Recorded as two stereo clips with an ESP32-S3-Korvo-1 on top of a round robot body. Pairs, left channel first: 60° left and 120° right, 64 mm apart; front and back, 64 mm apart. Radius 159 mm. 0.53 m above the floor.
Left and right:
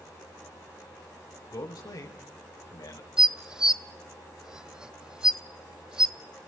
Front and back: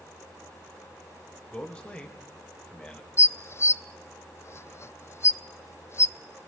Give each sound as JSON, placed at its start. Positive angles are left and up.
{"t": 1.5, "sound": "a man speaking", "azimuth_deg": 70, "distance_m": 3.0}
{"t": 3.2, "sound": "dishes clattering", "azimuth_deg": -45, "distance_m": 0.6}